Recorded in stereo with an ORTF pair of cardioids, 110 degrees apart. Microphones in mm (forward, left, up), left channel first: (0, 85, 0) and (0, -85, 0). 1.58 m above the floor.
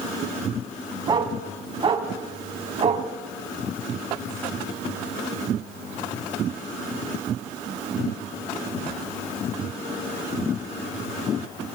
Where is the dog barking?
30° right, 5.5 m; by 3.1 s 45° right, 5 m.